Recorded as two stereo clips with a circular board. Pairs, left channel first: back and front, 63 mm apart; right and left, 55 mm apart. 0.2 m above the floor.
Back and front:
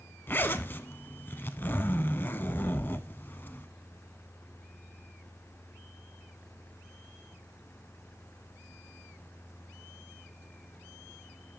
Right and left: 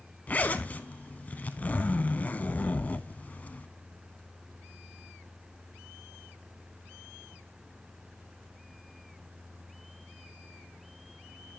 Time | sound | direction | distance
0.3 | a zipper | 140° right | 0.5 m